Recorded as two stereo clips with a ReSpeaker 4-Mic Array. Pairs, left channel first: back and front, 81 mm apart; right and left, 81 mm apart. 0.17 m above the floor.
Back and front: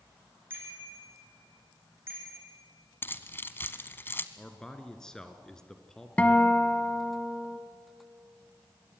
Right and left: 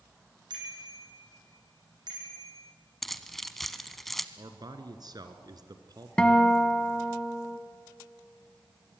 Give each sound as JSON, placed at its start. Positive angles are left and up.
{"t": 0.5, "sound": "a bicycle bell", "azimuth_deg": 65, "distance_m": 6.0}
{"t": 3.0, "sound": "keys jangling", "azimuth_deg": -175, "distance_m": 1.0}
{"t": 4.4, "sound": "a man speaking", "azimuth_deg": 100, "distance_m": 2.0}
{"t": 6.2, "sound": "a guitar", "azimuth_deg": -150, "distance_m": 1.4}